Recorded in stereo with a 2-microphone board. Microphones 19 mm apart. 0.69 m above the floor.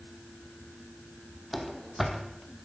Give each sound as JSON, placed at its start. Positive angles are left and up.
{"t": 1.5, "sound": "running footsteps", "side_deg": -5, "distance_m": 2.0}